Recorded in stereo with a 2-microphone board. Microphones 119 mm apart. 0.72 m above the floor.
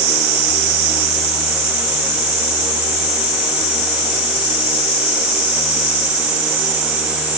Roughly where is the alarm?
I don't hear an alarm.